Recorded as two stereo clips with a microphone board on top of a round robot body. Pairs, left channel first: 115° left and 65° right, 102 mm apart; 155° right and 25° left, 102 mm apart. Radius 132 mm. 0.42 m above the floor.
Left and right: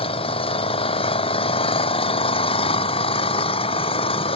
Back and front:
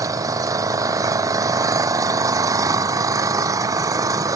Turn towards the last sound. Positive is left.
turn(degrees=80)